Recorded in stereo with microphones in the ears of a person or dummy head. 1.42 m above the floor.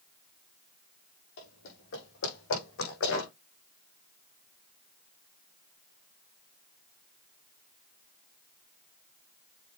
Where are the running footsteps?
65° left (ahead or behind), 4.5 m; by 3.3 s 75° left (ahead or behind), 5 m.